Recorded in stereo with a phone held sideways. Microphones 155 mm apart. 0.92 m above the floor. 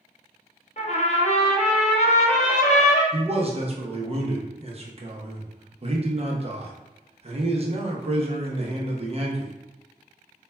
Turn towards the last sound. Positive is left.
turn(degrees=-40)  # may be behind; listen again after turning